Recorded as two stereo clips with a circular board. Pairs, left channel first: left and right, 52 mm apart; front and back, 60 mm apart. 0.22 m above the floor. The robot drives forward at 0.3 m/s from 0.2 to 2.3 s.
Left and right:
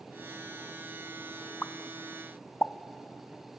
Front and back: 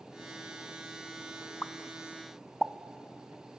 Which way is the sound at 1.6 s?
50° left.